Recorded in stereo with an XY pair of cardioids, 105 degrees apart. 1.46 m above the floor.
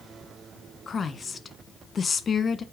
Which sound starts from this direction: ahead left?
A woman speaking, at 0.9 s.